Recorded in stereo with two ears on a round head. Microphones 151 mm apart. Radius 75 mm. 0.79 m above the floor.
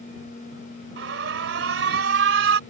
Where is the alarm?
75° right (ahead or behind).